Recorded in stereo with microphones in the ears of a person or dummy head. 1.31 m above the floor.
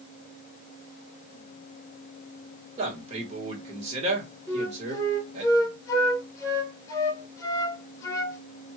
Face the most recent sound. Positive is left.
turn(degrees=20)  # may be behind; listen again after turning